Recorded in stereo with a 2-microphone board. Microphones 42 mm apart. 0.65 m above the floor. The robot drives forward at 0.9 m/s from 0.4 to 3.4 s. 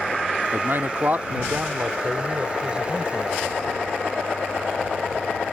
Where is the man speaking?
60° right (ahead or behind); by 3.5 s 20° right (ahead or behind).